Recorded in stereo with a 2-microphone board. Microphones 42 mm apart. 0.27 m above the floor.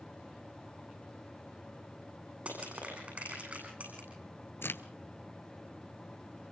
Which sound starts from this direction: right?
Crushing, at 2.5 s.